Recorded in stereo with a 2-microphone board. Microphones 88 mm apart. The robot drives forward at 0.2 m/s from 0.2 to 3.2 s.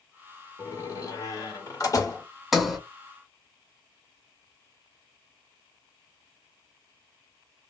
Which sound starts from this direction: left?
A door slam, at 0.6 s.